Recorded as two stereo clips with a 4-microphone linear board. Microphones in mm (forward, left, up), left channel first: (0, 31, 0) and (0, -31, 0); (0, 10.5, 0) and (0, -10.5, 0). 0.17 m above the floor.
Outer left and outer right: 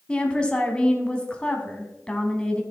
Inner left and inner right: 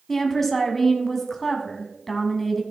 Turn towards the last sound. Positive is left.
turn(degrees=15)  # may be behind; listen again after turning